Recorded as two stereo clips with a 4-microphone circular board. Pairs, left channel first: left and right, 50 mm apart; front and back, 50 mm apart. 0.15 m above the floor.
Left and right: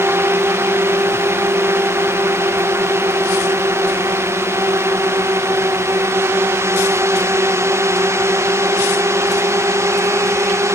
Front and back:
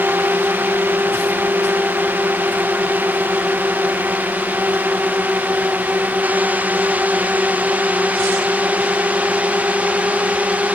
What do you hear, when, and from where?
0.0 s a drone: 130° right; by 10.7 s 120° right